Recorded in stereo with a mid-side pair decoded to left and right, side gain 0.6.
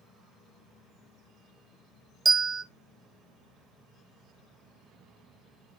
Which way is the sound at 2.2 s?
25° right.